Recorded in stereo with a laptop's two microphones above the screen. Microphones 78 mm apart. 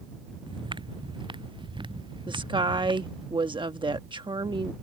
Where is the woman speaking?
75° right (ahead or behind).